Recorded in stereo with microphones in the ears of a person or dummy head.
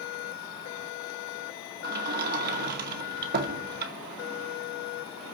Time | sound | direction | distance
1.8 | a sliding door | 55° right (ahead or behind) | 2 m